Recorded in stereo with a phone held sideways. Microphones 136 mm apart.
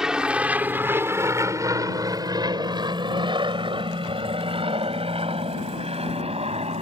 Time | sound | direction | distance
0.0 | an aircraft | 5° right (ahead or behind) | ?